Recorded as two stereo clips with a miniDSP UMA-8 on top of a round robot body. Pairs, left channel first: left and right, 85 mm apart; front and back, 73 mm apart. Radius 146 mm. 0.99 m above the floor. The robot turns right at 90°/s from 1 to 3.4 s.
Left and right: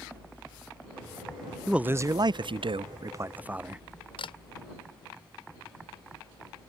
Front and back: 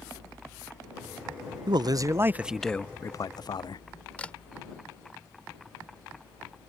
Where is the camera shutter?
75° left.